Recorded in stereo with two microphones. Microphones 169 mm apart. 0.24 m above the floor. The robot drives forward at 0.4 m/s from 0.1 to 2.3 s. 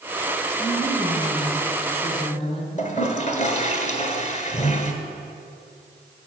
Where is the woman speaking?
40° left (ahead or behind), 1.9 m; by 2.8 s 35° left (ahead or behind), 2 m.